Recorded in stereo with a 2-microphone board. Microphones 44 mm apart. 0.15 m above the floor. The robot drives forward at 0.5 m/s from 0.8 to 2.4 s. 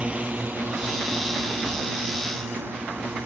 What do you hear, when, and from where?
0.0 s a drone: 30° right (ahead or behind); by 3.3 s 60° right (ahead or behind)